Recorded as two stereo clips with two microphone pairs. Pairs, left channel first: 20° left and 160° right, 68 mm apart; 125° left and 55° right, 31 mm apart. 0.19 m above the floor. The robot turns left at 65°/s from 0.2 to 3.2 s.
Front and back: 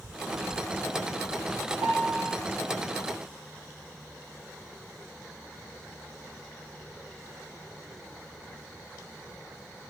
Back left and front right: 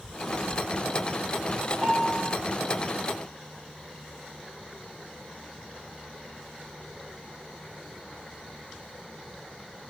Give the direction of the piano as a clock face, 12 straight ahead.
4 o'clock.